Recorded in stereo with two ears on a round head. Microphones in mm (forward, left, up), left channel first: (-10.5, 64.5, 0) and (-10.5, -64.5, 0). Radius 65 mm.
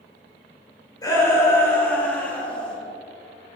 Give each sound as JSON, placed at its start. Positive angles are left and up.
{"t": 1.0, "sound": "a shout", "side_deg": 25, "distance_m": 4.5}